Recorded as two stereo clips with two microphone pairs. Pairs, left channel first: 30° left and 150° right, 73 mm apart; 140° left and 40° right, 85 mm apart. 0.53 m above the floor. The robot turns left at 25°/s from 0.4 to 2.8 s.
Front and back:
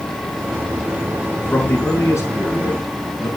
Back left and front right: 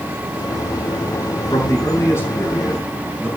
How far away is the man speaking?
About 4.5 m.